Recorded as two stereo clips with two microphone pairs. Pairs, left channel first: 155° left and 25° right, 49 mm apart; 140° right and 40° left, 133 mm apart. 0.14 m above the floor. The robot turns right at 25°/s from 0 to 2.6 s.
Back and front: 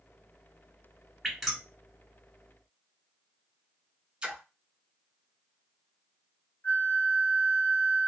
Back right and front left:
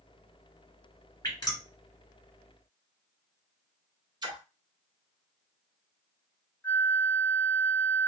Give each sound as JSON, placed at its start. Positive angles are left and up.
{"t": 1.2, "sound": "dripping", "azimuth_deg": -120, "distance_m": 1.7}
{"t": 4.2, "sound": "a splash", "azimuth_deg": 20, "distance_m": 0.8}
{"t": 6.6, "sound": "a flute", "azimuth_deg": 145, "distance_m": 1.0}